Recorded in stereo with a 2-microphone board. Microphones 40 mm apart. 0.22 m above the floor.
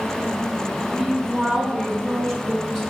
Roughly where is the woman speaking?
Centre.